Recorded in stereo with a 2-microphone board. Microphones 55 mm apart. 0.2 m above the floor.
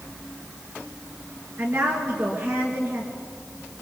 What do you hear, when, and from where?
1.6 s a woman speaking: 50° right (ahead or behind), 3.5 m